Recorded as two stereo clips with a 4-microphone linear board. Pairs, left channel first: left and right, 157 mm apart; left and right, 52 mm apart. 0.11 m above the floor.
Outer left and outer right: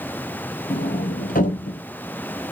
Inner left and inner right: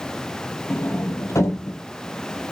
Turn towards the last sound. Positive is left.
turn(degrees=65)  # may be behind; listen again after turning